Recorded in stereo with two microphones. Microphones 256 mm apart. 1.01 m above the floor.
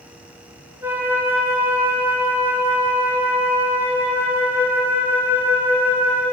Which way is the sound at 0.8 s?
10° right (ahead or behind).